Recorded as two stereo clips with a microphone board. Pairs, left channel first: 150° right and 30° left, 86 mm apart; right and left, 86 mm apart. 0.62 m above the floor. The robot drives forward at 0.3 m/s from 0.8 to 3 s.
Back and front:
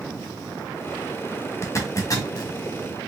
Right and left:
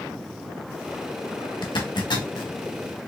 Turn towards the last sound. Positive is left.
turn(degrees=-120)